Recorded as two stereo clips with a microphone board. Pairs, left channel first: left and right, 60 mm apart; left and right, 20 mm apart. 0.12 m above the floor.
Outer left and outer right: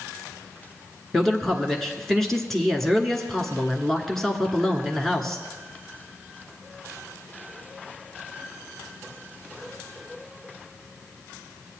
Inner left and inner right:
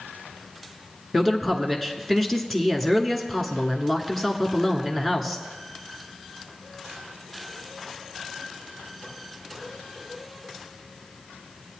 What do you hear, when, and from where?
1.1 s a man speaking: 5° left (ahead or behind), 1.2 m